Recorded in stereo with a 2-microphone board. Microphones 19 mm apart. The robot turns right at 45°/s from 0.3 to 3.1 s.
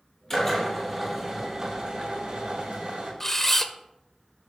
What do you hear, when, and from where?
0.3 s a drill: 160° left, 5.5 m; by 3.1 s 75° right, 5.5 m
3.2 s a camera shutter: 20° left (ahead or behind), 0.8 m